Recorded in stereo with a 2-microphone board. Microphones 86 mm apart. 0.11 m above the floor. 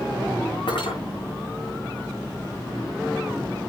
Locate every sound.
0.7 s cutlery clinking: 75° left (ahead or behind), 6.5 m